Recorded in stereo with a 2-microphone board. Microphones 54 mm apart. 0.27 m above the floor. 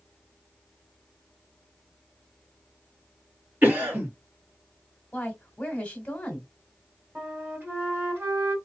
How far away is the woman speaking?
About 1.4 m.